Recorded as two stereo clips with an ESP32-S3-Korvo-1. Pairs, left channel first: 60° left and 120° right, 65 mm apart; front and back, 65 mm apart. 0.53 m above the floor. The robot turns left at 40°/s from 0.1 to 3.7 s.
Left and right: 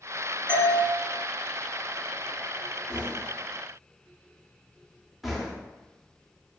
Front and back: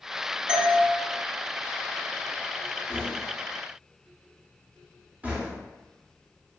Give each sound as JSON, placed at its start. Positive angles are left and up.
{"t": 0.5, "sound": "a doorbell", "azimuth_deg": 105, "distance_m": 1.4}
{"t": 2.9, "sound": "knocking", "azimuth_deg": -170, "distance_m": 0.7}